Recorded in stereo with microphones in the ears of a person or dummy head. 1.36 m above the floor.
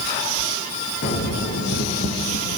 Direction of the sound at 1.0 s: 55° left (ahead or behind).